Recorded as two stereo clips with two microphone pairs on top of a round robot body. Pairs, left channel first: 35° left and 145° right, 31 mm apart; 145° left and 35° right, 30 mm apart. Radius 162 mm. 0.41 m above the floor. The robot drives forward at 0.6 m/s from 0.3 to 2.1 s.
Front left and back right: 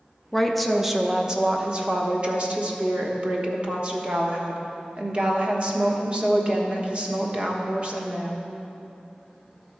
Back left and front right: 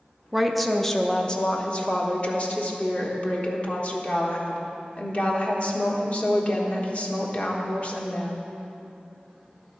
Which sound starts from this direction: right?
A woman speaking, at 0.3 s.